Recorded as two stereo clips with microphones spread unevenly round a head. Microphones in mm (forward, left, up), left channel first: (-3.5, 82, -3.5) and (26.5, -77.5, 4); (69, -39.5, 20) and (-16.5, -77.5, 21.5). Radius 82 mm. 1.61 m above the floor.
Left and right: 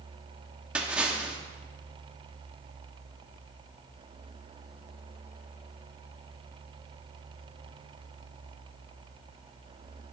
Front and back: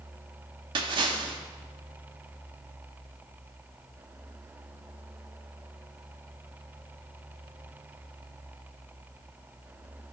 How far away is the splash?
About 1.4 m.